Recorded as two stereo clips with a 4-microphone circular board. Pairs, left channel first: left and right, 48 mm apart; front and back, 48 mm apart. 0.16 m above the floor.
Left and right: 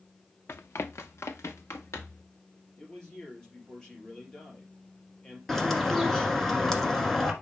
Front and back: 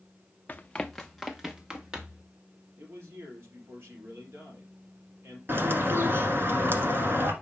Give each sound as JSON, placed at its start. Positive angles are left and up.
{"t": 0.5, "sound": "running footsteps", "azimuth_deg": 55, "distance_m": 0.6}
{"t": 2.8, "sound": "a man speaking", "azimuth_deg": 160, "distance_m": 3.5}
{"t": 5.5, "sound": "a bird", "azimuth_deg": 175, "distance_m": 1.4}